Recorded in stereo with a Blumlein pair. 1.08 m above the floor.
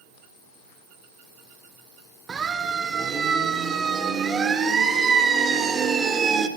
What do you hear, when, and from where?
2.3 s a siren: 20° right, 2.5 m